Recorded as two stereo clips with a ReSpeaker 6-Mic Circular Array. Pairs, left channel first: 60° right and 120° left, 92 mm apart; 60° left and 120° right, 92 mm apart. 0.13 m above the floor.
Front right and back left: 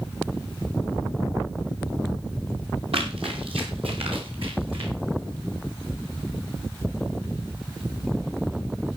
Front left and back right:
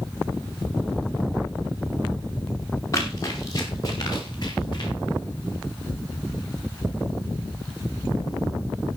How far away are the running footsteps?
About 5.5 m.